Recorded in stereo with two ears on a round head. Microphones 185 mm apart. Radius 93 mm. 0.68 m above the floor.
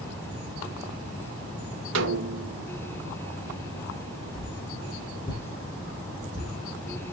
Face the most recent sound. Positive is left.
turn(degrees=20)  # may be behind; listen again after turning